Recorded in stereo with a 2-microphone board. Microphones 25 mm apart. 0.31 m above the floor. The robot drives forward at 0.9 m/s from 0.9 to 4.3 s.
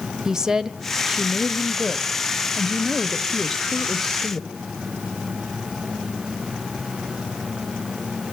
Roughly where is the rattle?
No rattle in this recording.